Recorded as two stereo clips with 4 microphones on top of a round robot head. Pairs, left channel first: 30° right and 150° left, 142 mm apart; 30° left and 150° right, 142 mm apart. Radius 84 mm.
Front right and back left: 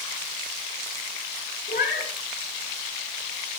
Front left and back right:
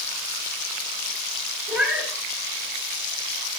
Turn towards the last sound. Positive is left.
turn(degrees=-65)